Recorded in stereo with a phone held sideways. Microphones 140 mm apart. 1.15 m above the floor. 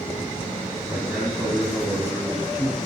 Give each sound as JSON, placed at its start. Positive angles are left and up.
{"t": 0.9, "sound": "a man speaking", "side_deg": -15, "distance_m": 3.5}